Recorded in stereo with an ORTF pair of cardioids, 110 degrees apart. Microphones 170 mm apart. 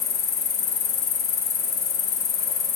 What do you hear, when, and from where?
0.0 s an insect: 70° left, 2.0 m